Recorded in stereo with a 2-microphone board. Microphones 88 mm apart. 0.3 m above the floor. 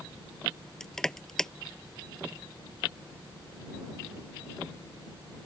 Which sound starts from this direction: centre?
Crushing, at 0.8 s.